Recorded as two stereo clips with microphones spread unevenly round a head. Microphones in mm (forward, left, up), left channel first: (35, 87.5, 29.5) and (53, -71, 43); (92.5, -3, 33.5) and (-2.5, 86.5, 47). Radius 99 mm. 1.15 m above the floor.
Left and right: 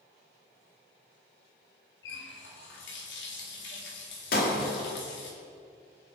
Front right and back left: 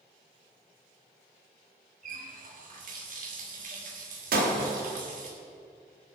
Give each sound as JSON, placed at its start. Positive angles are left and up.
{"t": 2.0, "sound": "a running tap", "azimuth_deg": 120, "distance_m": 2.0}
{"t": 4.3, "sound": "breaking glass", "azimuth_deg": 140, "distance_m": 1.5}